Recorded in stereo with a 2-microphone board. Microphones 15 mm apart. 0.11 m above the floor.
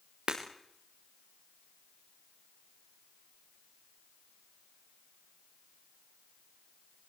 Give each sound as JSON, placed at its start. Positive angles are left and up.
{"t": 0.3, "sound": "breaking glass", "side_deg": -80, "distance_m": 5.0}